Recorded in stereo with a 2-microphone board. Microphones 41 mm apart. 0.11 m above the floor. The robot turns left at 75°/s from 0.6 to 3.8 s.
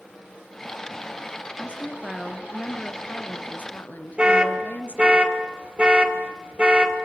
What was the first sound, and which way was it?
A woman speaking, 135° right.